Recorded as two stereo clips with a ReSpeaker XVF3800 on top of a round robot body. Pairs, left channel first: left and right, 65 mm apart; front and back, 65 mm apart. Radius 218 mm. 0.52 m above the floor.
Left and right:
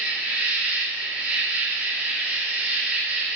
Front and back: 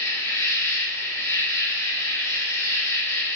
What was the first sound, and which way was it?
An insect, 30° right.